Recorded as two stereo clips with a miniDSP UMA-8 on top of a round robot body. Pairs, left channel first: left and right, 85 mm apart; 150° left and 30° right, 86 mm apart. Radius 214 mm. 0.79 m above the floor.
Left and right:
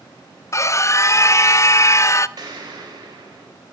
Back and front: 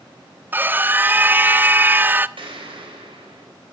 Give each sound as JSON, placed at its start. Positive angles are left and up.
{"t": 0.5, "sound": "a scream", "azimuth_deg": 35, "distance_m": 0.6}
{"t": 2.4, "sound": "an explosion", "azimuth_deg": -50, "distance_m": 4.0}